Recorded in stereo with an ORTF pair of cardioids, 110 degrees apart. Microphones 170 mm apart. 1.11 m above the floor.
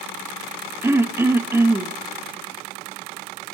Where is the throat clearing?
15° right, 0.7 m.